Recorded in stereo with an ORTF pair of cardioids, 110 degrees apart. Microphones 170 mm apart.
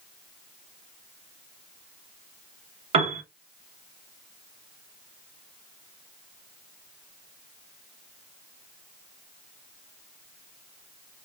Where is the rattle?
No rattle in this recording.